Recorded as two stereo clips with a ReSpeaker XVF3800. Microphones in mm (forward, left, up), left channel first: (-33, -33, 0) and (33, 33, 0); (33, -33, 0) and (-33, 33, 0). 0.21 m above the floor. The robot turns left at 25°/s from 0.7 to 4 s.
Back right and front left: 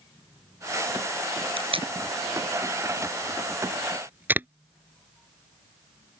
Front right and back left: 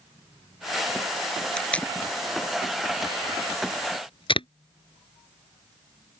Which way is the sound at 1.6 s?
35° left.